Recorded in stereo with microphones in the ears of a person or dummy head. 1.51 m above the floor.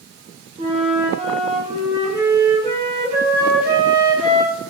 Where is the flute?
25° right (ahead or behind), 0.8 m.